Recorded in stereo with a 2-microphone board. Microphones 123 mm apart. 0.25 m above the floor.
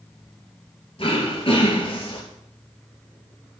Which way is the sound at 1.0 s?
45° left (ahead or behind).